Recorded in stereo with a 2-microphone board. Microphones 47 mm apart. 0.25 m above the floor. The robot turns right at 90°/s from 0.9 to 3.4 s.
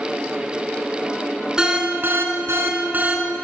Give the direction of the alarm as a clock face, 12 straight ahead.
6 o'clock.